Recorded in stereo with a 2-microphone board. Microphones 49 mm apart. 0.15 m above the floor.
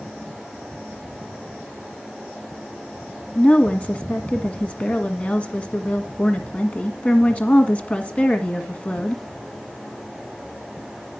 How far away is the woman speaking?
About 1.6 m.